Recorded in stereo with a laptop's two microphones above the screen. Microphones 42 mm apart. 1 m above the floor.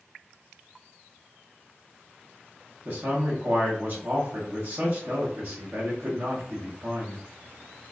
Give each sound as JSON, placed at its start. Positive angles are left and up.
{"t": 2.9, "sound": "a man speaking", "side_deg": -55, "distance_m": 1.0}